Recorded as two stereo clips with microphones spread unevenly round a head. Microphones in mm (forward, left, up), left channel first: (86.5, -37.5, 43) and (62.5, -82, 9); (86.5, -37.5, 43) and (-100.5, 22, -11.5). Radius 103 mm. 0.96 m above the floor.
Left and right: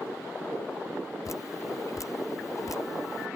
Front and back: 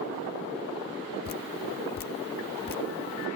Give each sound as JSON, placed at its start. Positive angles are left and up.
{"t": 1.2, "sound": "dripping", "azimuth_deg": 30}